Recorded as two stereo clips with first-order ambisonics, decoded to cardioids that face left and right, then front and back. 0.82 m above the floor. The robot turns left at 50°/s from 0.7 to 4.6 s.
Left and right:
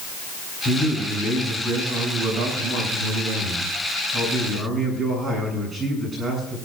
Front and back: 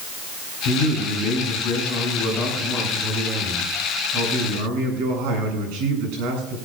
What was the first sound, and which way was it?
A man speaking, 30° left.